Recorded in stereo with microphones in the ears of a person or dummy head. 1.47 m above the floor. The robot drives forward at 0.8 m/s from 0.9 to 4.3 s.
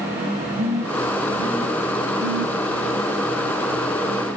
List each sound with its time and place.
0.6 s a phone buzzing: 40° right (ahead or behind), 3 m; by 2.6 s 60° right (ahead or behind), 2 m